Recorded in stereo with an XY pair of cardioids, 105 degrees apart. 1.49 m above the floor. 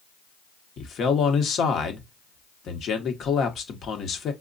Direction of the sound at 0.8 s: 60° left.